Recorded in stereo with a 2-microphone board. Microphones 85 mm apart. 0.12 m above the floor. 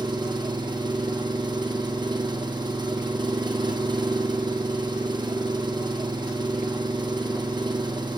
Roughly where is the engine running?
Right.